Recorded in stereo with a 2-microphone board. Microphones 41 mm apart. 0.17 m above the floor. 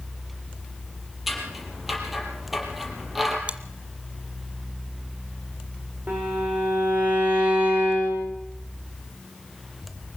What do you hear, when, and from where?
1.3 s scissors: 5° right (ahead or behind), 5 m
3.5 s chewing: 30° right (ahead or behind), 1.3 m
6.1 s a violin: 45° right (ahead or behind), 7.5 m